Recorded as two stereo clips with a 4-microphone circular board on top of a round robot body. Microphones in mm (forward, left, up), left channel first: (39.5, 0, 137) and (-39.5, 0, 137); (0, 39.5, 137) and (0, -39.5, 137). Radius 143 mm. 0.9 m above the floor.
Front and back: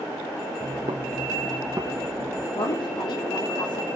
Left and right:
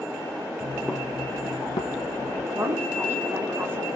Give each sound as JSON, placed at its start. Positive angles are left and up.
{"t": 0.6, "sound": "footsteps", "azimuth_deg": -145, "distance_m": 1.1}
{"t": 2.5, "sound": "a woman speaking", "azimuth_deg": -25, "distance_m": 3.0}